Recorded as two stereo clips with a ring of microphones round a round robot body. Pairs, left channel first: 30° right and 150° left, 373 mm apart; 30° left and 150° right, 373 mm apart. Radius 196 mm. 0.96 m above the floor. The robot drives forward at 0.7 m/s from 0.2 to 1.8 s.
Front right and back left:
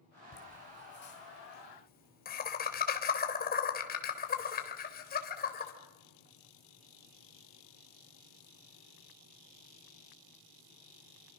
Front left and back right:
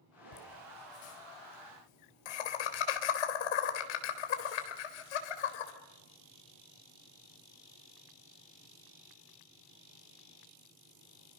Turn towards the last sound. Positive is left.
turn(degrees=35)